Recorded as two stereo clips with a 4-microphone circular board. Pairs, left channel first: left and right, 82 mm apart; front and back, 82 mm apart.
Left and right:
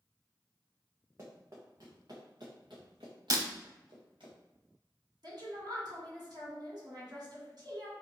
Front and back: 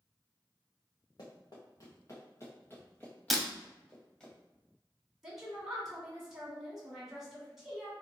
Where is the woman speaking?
95° right, 2.0 m.